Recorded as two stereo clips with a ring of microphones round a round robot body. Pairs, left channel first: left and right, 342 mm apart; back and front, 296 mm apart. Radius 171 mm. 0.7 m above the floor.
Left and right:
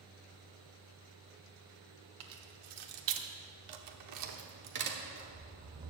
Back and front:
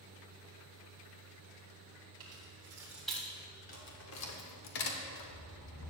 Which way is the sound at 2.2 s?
65° right.